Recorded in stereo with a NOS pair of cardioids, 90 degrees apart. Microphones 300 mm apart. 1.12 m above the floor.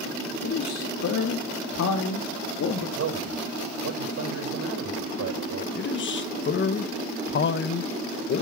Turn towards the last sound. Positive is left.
turn(degrees=40)